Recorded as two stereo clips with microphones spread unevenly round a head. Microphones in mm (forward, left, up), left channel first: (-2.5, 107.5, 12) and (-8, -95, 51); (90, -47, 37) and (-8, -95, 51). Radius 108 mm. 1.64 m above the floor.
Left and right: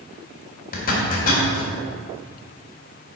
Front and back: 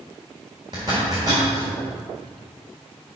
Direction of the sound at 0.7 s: 140° left.